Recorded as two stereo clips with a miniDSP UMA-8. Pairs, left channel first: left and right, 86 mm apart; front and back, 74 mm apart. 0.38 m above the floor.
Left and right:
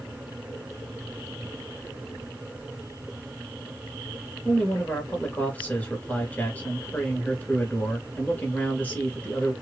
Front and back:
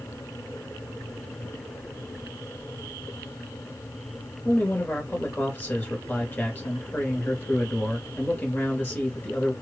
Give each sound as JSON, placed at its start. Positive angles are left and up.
{"t": 4.5, "sound": "a man speaking", "azimuth_deg": 40, "distance_m": 1.3}